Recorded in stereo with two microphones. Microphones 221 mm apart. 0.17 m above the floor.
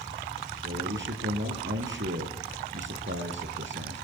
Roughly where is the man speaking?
Right.